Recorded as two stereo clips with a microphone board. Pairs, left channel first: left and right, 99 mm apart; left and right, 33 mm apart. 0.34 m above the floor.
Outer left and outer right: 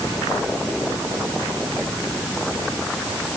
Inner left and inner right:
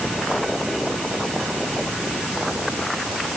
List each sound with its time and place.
Only background noise.